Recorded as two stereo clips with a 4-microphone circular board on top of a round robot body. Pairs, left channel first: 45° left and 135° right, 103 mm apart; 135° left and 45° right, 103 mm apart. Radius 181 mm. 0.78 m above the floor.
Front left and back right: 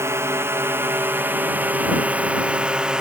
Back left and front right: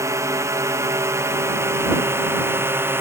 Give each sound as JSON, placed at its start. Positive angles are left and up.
{"t": 0.0, "sound": "a drone", "azimuth_deg": -85}